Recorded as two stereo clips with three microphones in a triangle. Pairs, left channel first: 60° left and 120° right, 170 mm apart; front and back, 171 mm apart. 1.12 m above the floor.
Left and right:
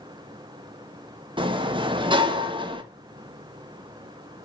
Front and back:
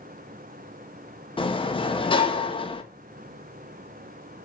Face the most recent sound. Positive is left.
turn(degrees=-60)